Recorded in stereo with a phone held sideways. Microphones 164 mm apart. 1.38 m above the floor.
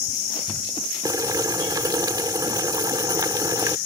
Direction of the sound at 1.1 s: 25° right (ahead or behind).